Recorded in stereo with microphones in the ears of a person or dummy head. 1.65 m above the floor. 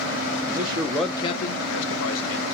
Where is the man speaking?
40° right (ahead or behind), 0.7 m; by 2.4 s 80° left, 1.2 m.